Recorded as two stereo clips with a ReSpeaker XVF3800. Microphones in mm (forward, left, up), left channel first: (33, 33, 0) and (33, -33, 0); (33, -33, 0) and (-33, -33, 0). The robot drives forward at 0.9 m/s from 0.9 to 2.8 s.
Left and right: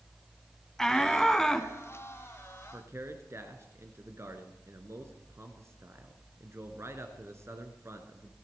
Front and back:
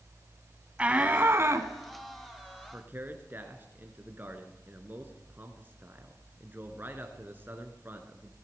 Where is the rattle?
I don't hear a rattle.